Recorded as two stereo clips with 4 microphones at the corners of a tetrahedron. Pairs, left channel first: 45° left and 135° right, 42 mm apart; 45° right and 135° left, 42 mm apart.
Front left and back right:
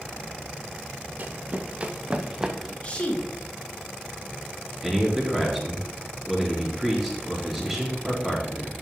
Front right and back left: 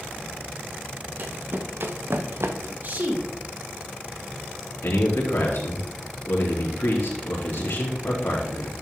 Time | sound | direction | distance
1.2 | running footsteps | straight behind | 1.3 m
2.8 | a woman speaking | 100° left | 2.5 m
4.8 | a man speaking | 50° right | 3.5 m